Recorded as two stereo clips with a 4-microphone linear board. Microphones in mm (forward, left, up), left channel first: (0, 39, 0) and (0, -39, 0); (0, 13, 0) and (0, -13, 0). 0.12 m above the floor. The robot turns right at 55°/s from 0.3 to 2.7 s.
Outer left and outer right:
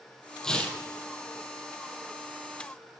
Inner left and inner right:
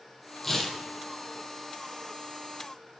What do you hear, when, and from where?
0.4 s tearing paper: 10° left (ahead or behind), 0.7 m; by 0.8 s 25° left (ahead or behind), 0.7 m